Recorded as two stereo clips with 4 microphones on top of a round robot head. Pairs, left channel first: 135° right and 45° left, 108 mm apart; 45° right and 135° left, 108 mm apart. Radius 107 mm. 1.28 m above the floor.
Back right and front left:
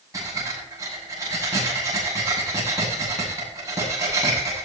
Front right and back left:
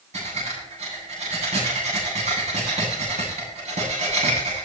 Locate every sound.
0.1 s breathing: 105° left, 9 m